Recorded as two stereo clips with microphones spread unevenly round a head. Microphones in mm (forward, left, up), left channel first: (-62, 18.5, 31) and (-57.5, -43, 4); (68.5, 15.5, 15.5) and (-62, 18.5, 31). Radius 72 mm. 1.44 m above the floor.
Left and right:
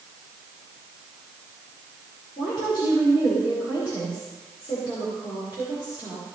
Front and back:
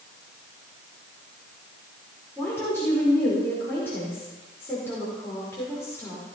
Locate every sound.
2.4 s a woman speaking: 75° left, 5 m